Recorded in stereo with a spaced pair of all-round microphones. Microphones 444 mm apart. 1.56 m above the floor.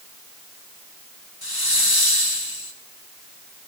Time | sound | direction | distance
1.4 | a hiss | 55° left (ahead or behind) | 2.5 m